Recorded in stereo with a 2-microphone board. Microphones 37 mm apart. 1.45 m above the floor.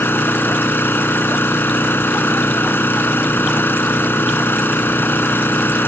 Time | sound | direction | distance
0.0 | an engine running | 55° left (ahead or behind) | ?